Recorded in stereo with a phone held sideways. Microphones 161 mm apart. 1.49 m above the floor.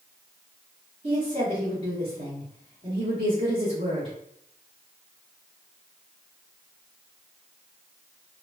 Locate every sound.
1.0 s a woman speaking: 40° right (ahead or behind), 1.2 m